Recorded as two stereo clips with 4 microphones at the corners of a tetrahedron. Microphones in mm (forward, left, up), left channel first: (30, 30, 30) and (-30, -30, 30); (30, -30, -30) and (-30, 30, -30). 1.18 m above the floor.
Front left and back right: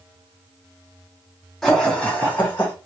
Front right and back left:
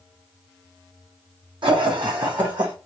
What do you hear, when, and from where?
1.6 s laughter: 135° left, 1.4 m; by 2.7 s 105° left, 1.3 m